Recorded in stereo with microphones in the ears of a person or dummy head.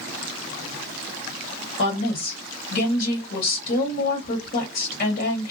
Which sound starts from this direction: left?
A woman speaking, at 1.8 s.